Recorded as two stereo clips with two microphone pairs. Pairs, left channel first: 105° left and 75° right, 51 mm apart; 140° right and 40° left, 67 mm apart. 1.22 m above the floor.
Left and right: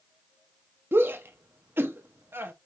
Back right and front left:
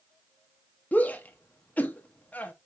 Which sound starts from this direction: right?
A shout, at 0.9 s.